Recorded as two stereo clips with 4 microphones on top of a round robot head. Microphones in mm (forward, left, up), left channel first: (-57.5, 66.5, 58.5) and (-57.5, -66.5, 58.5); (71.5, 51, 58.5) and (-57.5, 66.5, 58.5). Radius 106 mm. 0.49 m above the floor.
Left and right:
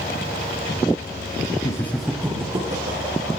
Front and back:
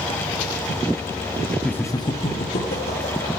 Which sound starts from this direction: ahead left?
Laughter, at 1.6 s.